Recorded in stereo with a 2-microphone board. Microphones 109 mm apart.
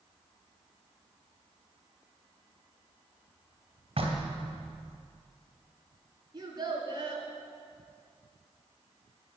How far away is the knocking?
About 2 m.